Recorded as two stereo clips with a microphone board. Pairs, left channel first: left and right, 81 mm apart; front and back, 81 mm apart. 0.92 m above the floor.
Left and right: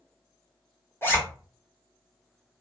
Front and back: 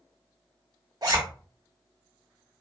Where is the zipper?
150° left, 0.9 m.